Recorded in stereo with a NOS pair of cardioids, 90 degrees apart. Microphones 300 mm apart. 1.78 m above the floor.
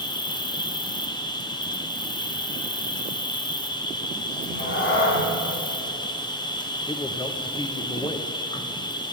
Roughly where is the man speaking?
Ahead.